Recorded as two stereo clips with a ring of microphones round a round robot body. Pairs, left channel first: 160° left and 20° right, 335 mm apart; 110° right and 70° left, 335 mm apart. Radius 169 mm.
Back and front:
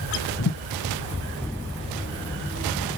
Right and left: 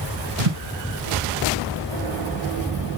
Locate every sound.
0.4 s a thud: 100° left, 3.5 m